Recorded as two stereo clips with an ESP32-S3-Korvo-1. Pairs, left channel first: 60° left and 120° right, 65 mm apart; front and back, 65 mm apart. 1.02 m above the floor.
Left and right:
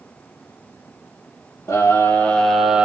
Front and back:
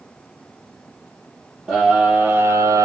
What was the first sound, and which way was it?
A scream, 105° left.